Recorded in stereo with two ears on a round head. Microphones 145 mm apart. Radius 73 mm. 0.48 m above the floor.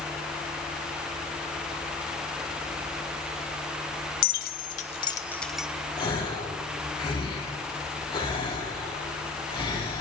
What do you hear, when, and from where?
4.2 s keys jangling: 70° left (ahead or behind), 1.1 m; by 5.7 s 5° right (ahead or behind), 1.0 m
6.0 s a gasp: 30° left (ahead or behind), 4 m